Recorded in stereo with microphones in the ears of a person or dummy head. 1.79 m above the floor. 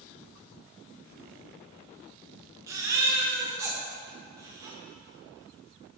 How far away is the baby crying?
About 1.2 m.